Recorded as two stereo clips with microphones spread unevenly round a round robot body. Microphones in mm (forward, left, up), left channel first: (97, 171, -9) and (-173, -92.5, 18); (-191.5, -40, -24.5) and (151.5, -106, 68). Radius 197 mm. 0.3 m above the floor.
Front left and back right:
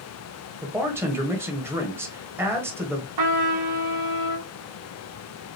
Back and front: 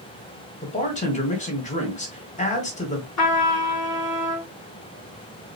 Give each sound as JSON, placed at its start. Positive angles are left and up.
{"t": 0.6, "sound": "a man speaking", "azimuth_deg": 140, "distance_m": 1.3}
{"t": 3.2, "sound": "a trumpet", "azimuth_deg": -160, "distance_m": 2.5}